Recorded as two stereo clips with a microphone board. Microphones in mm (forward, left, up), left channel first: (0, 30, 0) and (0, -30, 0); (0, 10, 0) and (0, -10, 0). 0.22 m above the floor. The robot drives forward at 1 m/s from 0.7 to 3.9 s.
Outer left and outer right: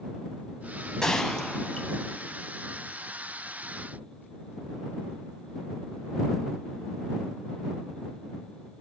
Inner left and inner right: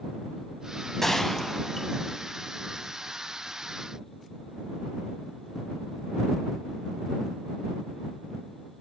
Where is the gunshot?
10° left (ahead or behind), 0.6 m; by 2.3 s 5° left (ahead or behind), 1.8 m.